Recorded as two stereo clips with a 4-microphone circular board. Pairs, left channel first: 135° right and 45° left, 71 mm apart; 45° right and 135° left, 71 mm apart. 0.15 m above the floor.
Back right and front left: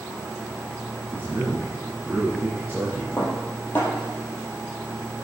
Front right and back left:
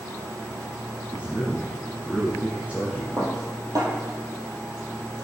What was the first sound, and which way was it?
A man speaking, 80° left.